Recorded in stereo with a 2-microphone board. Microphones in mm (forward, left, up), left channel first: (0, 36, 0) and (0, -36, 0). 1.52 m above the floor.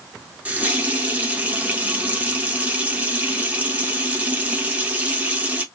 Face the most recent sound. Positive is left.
turn(degrees=-20)  # may be behind; listen again after turning